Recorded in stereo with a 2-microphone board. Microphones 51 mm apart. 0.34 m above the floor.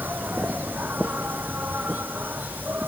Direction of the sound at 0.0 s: 40° right (ahead or behind).